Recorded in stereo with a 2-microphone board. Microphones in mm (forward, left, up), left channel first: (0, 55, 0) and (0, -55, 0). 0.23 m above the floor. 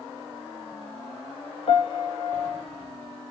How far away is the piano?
About 1.0 m.